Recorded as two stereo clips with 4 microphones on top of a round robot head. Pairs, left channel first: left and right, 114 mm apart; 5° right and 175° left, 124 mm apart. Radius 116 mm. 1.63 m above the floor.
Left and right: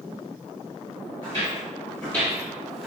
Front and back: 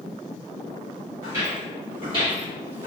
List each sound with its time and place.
1.2 s footsteps: 125° left, 1.8 m; by 2.9 s 175° left, 1.9 m